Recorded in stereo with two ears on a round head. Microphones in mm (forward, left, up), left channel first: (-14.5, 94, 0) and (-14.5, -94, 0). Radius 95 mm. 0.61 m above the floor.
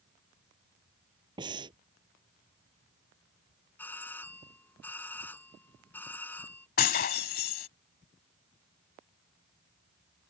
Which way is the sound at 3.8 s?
10° left (ahead or behind).